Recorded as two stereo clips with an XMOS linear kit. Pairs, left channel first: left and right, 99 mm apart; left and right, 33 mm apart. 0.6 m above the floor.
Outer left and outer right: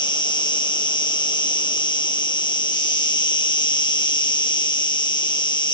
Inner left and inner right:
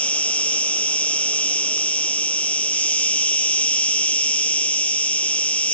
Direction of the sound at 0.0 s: 50° left (ahead or behind).